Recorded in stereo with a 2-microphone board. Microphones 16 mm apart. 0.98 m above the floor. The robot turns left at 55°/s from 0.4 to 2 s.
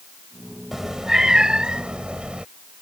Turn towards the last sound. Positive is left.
turn(degrees=-90)